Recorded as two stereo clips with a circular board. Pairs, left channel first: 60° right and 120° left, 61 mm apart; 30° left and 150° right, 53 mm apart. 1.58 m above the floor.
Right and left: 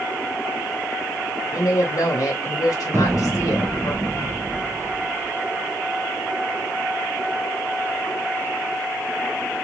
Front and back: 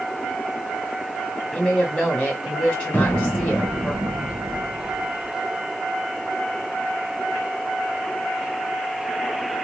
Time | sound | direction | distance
1.5 | a woman speaking | 40° right | 0.9 m
2.9 | an explosion | 80° left | 0.7 m